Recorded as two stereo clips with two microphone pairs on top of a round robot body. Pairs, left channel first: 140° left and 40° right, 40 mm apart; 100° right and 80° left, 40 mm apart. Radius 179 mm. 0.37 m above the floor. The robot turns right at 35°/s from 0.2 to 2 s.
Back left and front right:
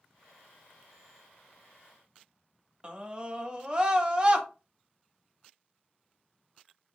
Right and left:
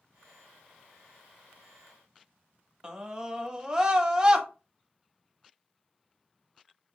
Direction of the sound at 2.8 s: 10° left.